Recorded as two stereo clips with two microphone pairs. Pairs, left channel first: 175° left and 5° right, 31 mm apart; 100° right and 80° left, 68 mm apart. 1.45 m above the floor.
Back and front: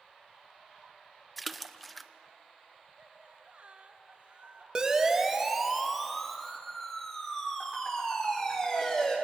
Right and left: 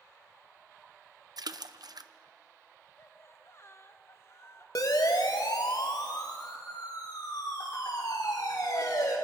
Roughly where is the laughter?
Ahead right.